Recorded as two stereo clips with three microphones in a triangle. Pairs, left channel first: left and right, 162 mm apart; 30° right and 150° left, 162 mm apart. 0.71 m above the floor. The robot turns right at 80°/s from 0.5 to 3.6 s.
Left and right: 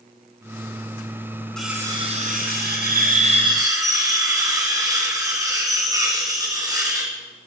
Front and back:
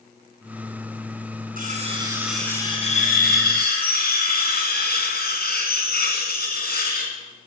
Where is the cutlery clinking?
175° left, 4 m; by 7.1 s 20° right, 4 m.